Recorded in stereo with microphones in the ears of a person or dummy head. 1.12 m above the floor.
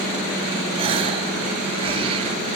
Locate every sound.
0.8 s a gasp: 40° right (ahead or behind), 1.8 m